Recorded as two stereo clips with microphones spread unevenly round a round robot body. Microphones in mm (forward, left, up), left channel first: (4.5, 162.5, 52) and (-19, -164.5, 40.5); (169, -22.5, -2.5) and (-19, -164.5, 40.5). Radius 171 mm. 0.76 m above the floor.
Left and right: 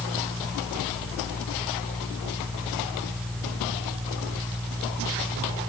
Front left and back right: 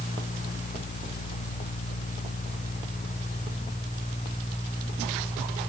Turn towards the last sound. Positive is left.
No sound to turn to.